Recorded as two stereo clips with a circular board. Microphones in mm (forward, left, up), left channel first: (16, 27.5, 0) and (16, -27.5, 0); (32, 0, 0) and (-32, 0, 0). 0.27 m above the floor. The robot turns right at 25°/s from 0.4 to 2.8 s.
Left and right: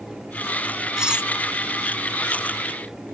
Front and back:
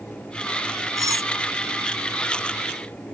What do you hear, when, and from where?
1.0 s cutlery clinking: 165° right; by 1.3 s 160° right